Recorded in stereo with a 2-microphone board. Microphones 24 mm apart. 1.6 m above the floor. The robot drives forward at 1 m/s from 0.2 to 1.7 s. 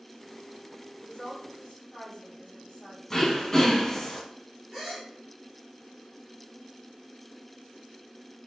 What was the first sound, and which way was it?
A woman speaking, 45° left (ahead or behind).